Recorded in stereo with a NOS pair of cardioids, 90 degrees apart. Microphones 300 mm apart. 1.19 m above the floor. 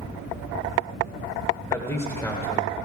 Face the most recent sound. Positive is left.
turn(degrees=10)